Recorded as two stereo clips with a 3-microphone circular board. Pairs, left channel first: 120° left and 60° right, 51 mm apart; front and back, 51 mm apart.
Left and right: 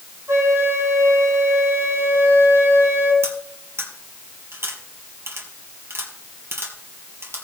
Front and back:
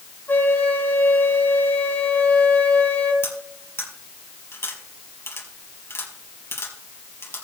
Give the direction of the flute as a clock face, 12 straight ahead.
2 o'clock.